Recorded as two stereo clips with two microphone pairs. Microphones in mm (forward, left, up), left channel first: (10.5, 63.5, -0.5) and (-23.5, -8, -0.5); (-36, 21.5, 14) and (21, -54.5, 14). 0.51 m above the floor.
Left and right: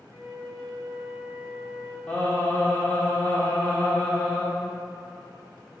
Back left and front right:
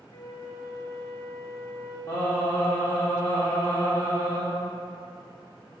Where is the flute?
170° right, 0.9 m.